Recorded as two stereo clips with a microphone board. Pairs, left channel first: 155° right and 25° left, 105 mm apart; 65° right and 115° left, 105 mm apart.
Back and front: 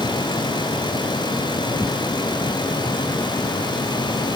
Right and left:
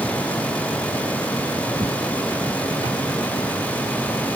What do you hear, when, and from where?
1.8 s tearing paper: 130° left